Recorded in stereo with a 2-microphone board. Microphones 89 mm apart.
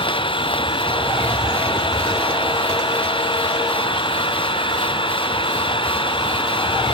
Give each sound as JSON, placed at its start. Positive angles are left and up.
{"t": 0.0, "sound": "an engine running", "side_deg": 70}